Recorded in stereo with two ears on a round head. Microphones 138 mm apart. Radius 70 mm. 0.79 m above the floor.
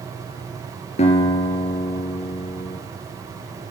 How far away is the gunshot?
No gunshot in this recording.